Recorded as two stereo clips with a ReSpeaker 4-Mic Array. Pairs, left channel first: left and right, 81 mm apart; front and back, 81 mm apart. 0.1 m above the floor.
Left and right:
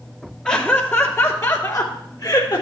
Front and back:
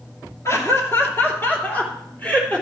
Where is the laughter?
20° left, 2 m; by 2.6 s 70° left, 3.5 m.